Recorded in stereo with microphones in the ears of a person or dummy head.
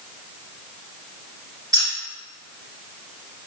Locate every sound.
1.7 s keys jangling: 20° right (ahead or behind), 1.7 m